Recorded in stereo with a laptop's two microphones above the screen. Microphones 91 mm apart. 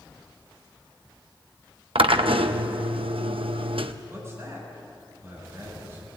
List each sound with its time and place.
1.9 s a drill: 80° right, 0.9 m
4.1 s a man speaking: 30° right (ahead or behind), 7 m